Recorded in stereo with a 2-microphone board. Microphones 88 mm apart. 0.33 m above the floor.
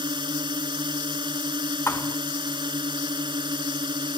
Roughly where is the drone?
Right.